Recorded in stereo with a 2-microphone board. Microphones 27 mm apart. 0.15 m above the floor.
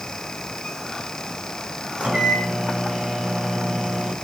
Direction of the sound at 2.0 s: 55° right (ahead or behind).